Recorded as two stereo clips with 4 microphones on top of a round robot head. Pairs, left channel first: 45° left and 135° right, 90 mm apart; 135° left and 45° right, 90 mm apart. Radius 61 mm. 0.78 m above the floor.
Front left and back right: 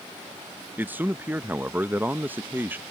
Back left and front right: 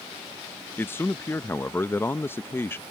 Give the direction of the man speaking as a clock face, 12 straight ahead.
6 o'clock.